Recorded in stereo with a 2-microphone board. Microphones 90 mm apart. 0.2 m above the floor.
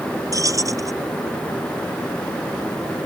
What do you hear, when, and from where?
0.3 s keys jangling: 40° right (ahead or behind)